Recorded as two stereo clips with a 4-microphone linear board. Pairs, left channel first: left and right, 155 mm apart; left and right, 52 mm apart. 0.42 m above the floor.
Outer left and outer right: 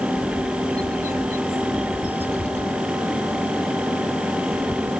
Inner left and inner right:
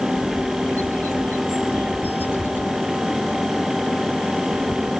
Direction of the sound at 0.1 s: 45° left (ahead or behind).